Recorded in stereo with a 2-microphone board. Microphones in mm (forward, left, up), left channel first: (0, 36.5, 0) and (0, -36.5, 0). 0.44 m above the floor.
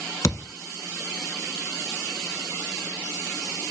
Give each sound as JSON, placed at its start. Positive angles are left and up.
{"t": 0.2, "sound": "a thud", "side_deg": 50, "distance_m": 0.8}